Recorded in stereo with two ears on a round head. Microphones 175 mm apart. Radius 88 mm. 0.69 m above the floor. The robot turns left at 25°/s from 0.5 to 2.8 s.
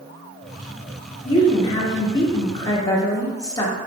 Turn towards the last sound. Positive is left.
turn(degrees=20)  # may be behind; listen again after turning